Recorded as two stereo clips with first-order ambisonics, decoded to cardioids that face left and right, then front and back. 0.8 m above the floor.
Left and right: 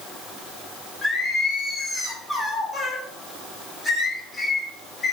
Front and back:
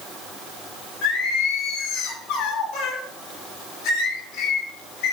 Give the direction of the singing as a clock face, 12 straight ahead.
11 o'clock.